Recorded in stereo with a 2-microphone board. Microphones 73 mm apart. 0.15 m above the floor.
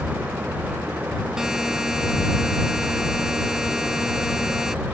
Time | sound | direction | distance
1.4 | a buzzer | 5° right (ahead or behind) | ?